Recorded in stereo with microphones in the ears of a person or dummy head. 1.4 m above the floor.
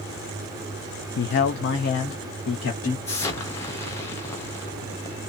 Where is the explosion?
20° left (ahead or behind), 0.7 m.